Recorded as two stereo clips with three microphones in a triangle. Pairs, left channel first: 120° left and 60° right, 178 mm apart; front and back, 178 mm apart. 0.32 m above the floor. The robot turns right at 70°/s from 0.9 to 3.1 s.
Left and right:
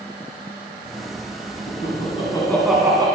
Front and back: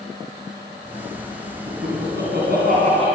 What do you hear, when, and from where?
1.7 s laughter: 140° left, 3 m; by 3.1 s 125° right, 3 m